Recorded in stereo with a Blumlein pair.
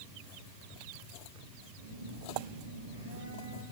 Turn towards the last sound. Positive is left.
turn(degrees=-60)